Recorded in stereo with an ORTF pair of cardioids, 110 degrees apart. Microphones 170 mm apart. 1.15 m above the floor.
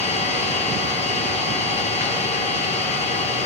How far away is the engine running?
About 6.5 m.